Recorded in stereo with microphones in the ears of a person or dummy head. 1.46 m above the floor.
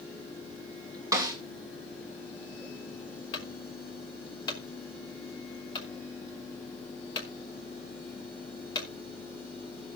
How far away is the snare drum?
About 3 m.